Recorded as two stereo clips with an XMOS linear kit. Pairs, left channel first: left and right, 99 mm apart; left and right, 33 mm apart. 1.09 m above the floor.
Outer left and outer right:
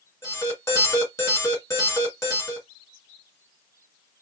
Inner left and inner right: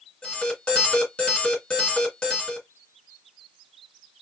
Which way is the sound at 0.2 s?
35° left (ahead or behind).